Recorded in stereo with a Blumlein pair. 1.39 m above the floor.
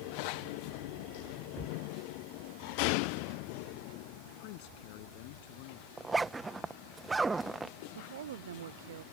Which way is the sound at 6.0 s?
10° right.